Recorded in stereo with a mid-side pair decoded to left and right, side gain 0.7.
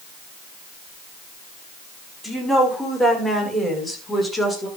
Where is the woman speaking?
5° right, 5.5 m; by 4.7 s 10° left, 6 m.